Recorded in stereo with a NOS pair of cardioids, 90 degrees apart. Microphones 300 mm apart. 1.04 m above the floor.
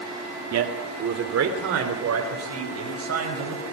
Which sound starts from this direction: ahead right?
A man speaking, at 0.5 s.